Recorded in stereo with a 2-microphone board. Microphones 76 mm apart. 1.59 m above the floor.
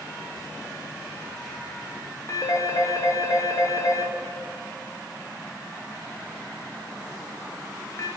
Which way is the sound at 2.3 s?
40° left (ahead or behind).